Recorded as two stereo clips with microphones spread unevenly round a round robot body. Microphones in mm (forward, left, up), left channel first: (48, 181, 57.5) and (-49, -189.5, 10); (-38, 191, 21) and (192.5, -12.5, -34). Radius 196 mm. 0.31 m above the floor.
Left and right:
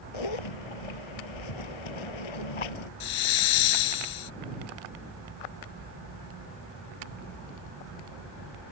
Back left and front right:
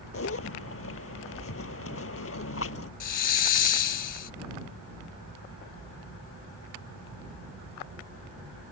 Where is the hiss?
110° left.